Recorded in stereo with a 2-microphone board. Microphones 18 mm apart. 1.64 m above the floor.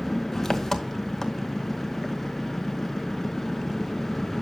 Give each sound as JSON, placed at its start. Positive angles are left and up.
{"t": 0.0, "sound": "an engine running", "side_deg": 20, "distance_m": 0.8}